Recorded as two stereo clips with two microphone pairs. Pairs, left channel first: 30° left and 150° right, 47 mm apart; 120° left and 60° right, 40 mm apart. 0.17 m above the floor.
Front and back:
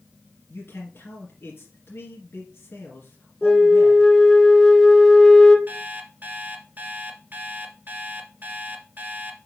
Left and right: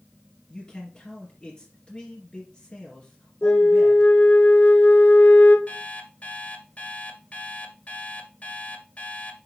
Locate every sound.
0.5 s a man speaking: 55° left, 2.5 m
3.4 s a flute: 110° left, 1.0 m
5.7 s an alarm clock: 165° left, 1.5 m